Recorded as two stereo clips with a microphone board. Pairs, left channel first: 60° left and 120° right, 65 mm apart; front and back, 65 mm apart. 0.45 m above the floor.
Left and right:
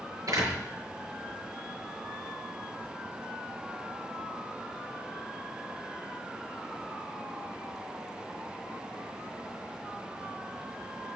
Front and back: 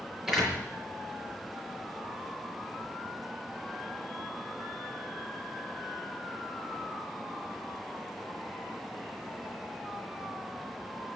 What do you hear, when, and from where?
0.3 s a door slam: 100° right, 6.5 m